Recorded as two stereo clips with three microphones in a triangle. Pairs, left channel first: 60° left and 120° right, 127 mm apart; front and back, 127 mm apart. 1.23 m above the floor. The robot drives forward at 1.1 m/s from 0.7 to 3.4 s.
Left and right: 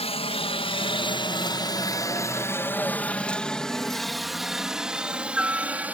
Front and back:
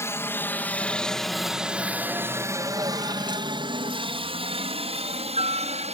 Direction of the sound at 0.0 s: 65° left.